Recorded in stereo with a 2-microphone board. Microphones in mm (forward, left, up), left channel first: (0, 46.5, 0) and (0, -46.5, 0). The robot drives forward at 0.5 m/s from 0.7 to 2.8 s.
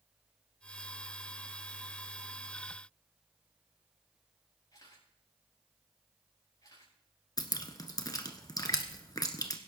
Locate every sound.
4.7 s a camera shutter: 45° left (ahead or behind), 6.5 m
7.4 s dripping: 45° left (ahead or behind), 1.4 m